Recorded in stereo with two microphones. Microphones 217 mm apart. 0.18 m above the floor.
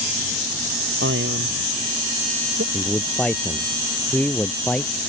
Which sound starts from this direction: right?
A man speaking, at 1.0 s.